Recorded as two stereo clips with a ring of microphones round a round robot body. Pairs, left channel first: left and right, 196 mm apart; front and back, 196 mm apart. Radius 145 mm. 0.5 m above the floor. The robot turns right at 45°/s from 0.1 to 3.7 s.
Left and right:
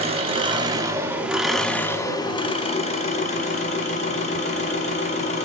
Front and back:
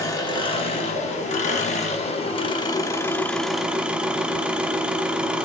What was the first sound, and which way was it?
An engine running, 60° right.